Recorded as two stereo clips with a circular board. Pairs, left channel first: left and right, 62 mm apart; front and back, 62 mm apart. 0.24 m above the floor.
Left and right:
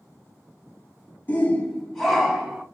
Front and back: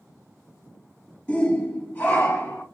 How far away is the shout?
About 1.5 m.